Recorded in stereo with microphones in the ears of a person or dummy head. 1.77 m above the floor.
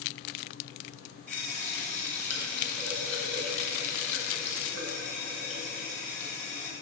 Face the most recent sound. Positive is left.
turn(degrees=10)  # may be behind; listen again after turning